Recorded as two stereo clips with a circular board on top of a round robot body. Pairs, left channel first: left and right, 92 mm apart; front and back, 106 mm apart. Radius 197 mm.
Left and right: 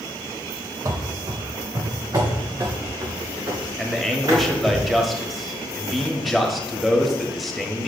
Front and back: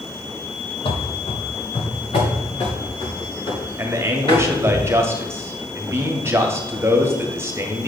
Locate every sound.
0.8 s running footsteps: 35° right, 0.6 m
3.8 s a man speaking: straight behind, 1.5 m